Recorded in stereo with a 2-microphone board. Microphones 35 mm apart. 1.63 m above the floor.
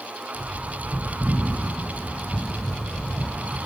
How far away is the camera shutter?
I don't hear a camera shutter.